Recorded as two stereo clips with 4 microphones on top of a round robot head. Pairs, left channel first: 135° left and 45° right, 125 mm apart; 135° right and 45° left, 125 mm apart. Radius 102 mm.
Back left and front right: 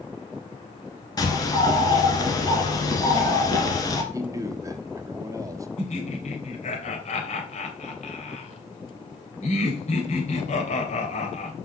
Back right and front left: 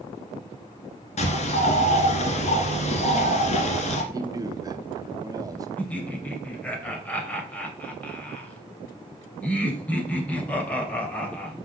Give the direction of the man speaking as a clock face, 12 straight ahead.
12 o'clock.